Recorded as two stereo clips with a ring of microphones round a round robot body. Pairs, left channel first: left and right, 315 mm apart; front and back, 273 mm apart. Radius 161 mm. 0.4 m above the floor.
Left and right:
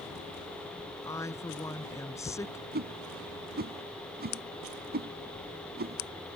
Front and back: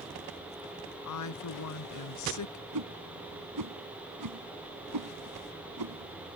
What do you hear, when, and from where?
1.1 s a woman speaking: 10° left
2.7 s a whoosh: 150° right